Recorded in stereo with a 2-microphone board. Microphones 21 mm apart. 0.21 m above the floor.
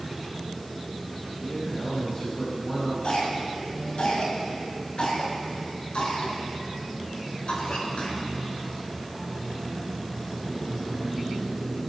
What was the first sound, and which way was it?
A man speaking, 60° left (ahead or behind).